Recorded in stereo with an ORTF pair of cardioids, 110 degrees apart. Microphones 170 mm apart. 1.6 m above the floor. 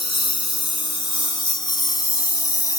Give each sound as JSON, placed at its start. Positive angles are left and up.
{"t": 0.0, "sound": "a lawn mower", "azimuth_deg": 30}